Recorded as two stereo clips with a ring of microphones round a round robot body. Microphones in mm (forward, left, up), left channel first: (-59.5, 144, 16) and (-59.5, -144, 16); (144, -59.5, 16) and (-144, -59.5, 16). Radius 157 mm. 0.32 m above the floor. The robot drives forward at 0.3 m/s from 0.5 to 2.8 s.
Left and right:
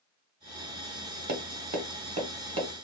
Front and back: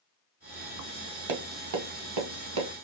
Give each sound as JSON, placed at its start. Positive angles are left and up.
{"t": 1.3, "sound": "tapping", "azimuth_deg": -150, "distance_m": 0.6}